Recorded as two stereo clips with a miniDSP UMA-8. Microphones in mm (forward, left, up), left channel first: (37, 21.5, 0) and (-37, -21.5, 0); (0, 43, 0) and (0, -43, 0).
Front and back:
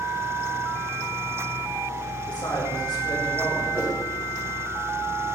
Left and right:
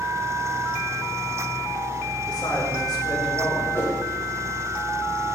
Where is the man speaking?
60° left, 4.5 m.